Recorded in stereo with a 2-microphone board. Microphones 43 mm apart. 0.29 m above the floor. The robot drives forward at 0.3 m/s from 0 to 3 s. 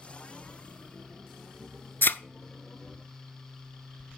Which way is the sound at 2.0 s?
50° left (ahead or behind).